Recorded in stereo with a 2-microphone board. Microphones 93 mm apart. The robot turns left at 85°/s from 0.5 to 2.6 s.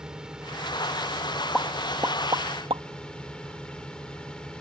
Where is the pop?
5° left (ahead or behind); by 2.8 s 70° right (ahead or behind).